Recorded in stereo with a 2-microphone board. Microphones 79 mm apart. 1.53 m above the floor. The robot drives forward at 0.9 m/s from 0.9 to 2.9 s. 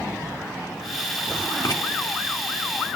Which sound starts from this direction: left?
Writing, at 1.6 s.